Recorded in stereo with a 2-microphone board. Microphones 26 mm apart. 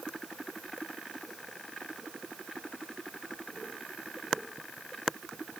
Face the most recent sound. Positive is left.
No sound to turn to.